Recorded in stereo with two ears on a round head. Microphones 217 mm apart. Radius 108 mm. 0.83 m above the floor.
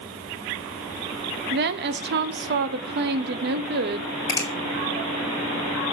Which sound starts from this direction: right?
A woman speaking, at 1.5 s.